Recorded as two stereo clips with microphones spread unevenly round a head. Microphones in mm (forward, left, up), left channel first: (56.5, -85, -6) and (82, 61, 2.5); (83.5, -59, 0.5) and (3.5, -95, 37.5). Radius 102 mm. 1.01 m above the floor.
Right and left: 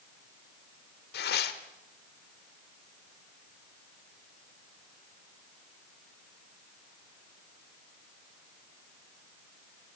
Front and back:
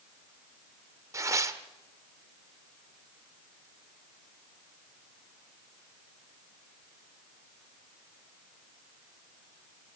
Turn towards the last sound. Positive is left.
turn(degrees=-115)